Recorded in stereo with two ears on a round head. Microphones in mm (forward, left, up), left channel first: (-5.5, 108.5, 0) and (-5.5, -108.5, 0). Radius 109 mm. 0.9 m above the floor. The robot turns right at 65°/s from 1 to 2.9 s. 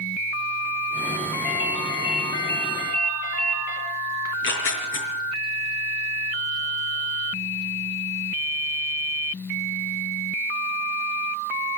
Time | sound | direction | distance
1.4 | a ringtone | 5° left | 10 m
4.2 | tearing paper | 60° left (ahead or behind) | 5 m